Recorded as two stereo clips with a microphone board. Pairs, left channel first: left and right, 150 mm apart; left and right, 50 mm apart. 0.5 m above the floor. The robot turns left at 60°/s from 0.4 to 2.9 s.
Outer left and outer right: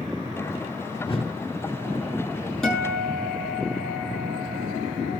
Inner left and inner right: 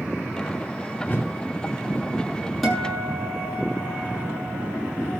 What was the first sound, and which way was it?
A whoosh, 35° left (ahead or behind).